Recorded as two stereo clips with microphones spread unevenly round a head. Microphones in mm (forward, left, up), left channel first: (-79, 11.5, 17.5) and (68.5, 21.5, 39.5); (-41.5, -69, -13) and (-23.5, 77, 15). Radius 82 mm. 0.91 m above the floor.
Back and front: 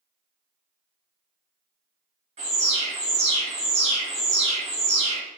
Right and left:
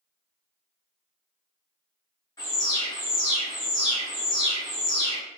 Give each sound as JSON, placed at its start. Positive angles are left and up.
{"t": 2.4, "sound": "an alarm", "azimuth_deg": -40, "distance_m": 1.2}